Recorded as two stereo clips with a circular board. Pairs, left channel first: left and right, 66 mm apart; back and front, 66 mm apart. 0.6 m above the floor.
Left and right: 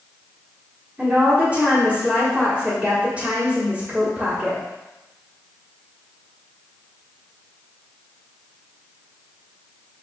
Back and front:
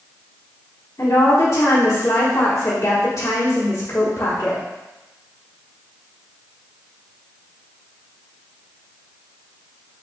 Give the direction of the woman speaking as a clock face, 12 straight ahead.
5 o'clock.